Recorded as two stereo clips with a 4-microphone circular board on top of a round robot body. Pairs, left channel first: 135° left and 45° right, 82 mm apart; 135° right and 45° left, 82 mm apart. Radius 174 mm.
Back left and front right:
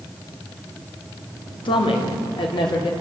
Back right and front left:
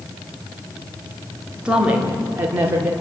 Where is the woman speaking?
125° left, 3.5 m; by 2.9 s 110° left, 4 m.